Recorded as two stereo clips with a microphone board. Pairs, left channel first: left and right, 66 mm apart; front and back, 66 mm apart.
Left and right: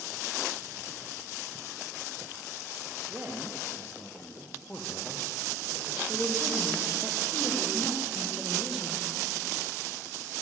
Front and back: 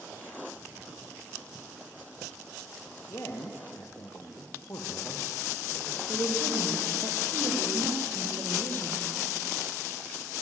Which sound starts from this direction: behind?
A woman speaking, at 6.1 s.